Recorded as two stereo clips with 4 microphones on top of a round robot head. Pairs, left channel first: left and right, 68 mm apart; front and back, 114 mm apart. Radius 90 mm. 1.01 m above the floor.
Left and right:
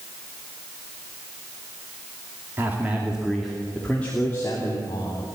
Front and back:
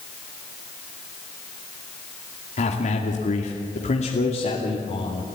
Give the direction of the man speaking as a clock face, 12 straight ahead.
1 o'clock.